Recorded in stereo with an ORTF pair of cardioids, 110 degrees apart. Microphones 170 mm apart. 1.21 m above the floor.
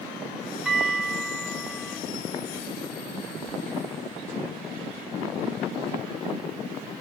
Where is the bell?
5° right, 4 m.